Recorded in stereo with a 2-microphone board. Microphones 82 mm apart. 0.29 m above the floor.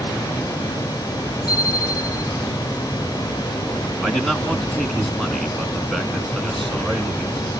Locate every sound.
1.5 s a bicycle bell: 65° left (ahead or behind), 8.5 m
4.0 s a man speaking: 5° left (ahead or behind), 2.5 m